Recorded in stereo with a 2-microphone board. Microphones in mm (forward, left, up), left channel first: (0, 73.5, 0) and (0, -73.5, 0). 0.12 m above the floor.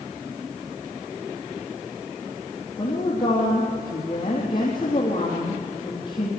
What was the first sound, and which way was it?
A woman speaking, 30° left (ahead or behind).